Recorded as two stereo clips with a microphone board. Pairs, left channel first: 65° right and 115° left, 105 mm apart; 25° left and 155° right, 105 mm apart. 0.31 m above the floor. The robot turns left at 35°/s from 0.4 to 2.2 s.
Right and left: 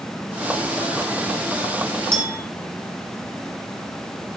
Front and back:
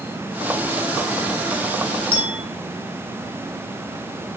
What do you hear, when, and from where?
2.1 s a clink: 55° left, 2.5 m; by 2.4 s 50° left, 2.5 m